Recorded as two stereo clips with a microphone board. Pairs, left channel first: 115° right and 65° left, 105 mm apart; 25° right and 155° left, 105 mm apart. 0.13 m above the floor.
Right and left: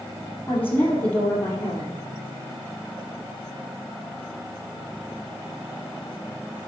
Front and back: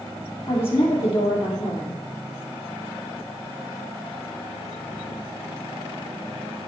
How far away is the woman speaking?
About 3 m.